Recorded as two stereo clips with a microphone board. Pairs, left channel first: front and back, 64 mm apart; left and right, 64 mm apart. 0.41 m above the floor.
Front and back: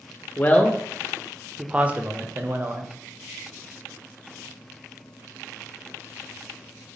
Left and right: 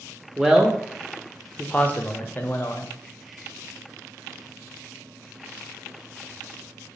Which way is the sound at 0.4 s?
20° right.